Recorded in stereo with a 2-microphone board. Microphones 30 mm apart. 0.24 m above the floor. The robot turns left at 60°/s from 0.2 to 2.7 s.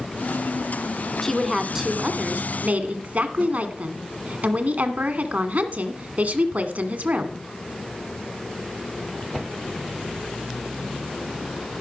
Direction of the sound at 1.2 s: 15° left.